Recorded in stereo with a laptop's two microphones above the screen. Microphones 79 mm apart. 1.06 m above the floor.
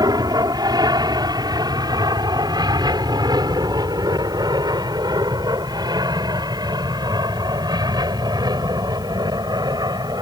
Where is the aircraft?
60° right (ahead or behind).